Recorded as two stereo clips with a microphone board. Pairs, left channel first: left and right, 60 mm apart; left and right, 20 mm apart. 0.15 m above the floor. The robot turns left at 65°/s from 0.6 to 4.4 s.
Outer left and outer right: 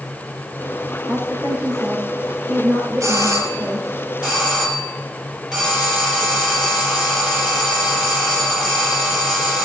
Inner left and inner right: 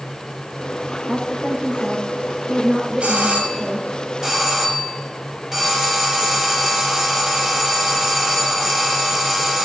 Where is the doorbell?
90° right, 5.5 m; by 9.6 s straight behind, 5.5 m.